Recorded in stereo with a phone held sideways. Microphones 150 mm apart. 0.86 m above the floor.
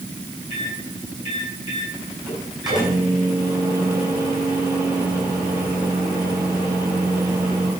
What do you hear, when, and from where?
0.5 s a microwave: 30° right (ahead or behind), 8 m